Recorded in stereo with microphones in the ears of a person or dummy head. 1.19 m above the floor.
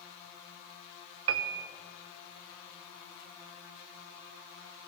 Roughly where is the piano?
Right.